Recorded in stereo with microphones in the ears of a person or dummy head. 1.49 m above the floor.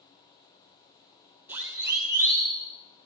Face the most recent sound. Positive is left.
turn(degrees=-20)  # may be behind; listen again after turning